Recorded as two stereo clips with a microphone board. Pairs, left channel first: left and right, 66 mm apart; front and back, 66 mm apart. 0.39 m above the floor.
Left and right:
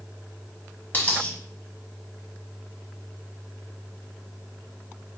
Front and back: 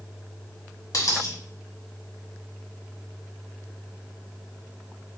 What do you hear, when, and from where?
0.9 s a dropped coin: 25° left, 1.0 m